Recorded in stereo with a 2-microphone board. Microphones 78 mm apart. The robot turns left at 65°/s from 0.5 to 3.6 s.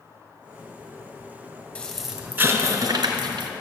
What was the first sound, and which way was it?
An explosion, 20° left.